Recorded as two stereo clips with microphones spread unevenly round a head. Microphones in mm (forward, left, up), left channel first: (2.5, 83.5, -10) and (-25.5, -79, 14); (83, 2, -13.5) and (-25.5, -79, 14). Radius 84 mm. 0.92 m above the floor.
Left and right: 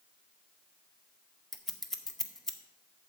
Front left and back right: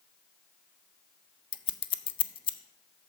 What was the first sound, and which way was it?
Scissors, 5° right.